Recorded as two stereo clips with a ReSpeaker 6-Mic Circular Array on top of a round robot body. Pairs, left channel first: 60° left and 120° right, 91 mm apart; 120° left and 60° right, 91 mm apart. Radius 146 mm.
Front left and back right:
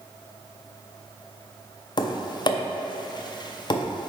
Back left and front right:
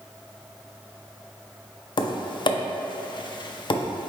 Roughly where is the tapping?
Left.